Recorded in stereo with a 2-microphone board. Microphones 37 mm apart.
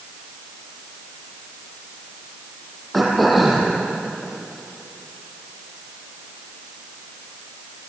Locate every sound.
2.9 s throat clearing: centre (ahead or behind), 5.5 m